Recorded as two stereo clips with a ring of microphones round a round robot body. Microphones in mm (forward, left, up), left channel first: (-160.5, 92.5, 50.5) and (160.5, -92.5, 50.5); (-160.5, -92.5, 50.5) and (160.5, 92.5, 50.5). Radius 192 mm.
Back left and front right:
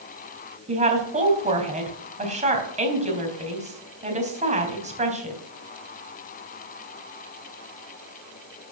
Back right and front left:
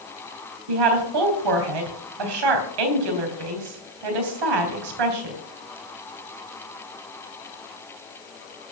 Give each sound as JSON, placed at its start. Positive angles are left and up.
{"t": 0.7, "sound": "a woman speaking", "azimuth_deg": 40, "distance_m": 3.5}